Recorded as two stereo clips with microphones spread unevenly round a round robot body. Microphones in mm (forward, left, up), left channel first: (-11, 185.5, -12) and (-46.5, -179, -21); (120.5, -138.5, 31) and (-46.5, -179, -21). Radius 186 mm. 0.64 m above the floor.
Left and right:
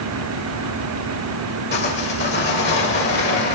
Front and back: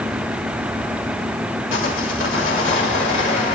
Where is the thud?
No thud in this recording.